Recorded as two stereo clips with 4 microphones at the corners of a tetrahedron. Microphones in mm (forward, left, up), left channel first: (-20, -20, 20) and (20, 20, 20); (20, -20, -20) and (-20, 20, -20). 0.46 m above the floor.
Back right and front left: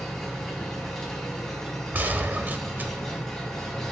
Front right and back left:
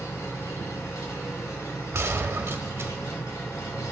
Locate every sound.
0.0 s an engine running: 50° right, 2.5 m
1.9 s a gunshot: 100° left, 0.8 m